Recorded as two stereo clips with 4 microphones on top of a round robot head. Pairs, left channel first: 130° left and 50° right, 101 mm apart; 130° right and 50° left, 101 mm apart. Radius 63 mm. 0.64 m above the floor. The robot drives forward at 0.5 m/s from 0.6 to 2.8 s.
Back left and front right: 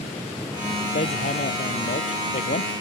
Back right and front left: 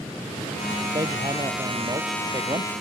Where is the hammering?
110° left; by 2.7 s 115° left.